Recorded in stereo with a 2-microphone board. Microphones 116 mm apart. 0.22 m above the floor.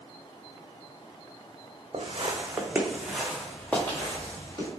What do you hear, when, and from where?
1.9 s footsteps: 55° right (ahead or behind), 0.8 m; by 4.7 s 25° left (ahead or behind), 2 m